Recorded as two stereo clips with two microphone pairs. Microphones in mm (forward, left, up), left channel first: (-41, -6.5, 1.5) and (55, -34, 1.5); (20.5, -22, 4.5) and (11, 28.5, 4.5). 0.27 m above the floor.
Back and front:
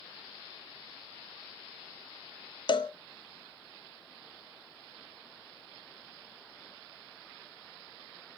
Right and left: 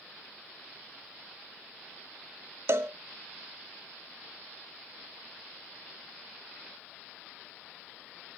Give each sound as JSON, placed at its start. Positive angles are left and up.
{"t": 2.7, "sound": "a cowbell", "azimuth_deg": 125, "distance_m": 0.5}